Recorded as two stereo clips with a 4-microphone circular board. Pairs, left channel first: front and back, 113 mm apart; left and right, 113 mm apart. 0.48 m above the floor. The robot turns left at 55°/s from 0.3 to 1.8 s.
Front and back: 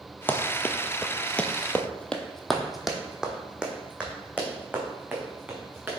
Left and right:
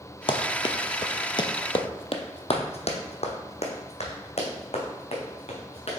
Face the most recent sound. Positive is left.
turn(degrees=105)